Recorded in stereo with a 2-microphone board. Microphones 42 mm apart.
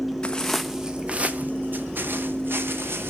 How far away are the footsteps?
About 0.6 m.